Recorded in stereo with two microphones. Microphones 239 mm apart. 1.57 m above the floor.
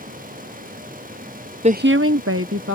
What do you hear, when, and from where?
1.6 s a woman speaking: 25° right (ahead or behind); by 2.8 s 60° right (ahead or behind)